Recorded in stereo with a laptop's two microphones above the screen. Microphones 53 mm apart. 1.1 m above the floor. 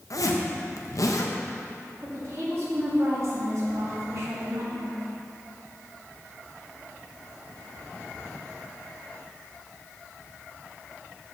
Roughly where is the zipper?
Left.